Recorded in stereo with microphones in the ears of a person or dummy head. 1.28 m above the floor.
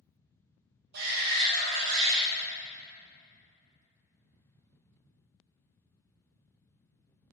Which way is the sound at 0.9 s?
60° right (ahead or behind).